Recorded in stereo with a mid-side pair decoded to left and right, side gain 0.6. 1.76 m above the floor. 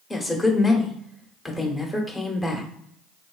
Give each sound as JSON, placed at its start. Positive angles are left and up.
{"t": 0.1, "sound": "a woman speaking", "azimuth_deg": 20, "distance_m": 1.2}